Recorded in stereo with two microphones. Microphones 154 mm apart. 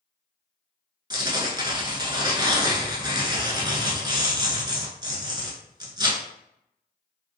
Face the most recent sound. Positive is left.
turn(degrees=-25)  # may be behind; listen again after turning